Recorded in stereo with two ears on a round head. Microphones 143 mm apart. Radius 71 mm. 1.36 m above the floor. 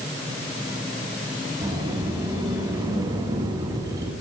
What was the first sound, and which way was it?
A sliding door, 25° right (ahead or behind).